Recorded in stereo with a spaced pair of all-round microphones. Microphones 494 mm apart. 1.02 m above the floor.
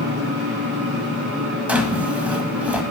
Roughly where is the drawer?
Centre.